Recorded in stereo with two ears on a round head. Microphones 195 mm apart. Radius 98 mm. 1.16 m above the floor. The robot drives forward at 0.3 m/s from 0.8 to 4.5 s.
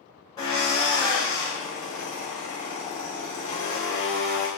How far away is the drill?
About 2 m.